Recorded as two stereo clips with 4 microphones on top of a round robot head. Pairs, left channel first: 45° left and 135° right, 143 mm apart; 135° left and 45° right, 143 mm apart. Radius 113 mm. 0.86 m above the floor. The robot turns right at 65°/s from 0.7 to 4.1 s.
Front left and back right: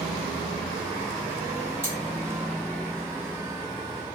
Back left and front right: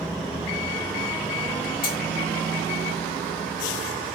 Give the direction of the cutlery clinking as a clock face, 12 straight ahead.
7 o'clock.